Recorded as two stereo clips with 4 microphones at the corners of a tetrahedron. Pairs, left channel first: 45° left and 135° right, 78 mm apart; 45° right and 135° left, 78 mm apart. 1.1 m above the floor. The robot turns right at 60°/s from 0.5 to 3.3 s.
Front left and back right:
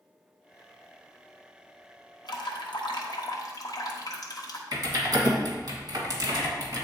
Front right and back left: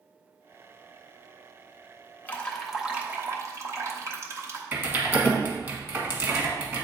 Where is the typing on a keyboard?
170° right, 1.5 m.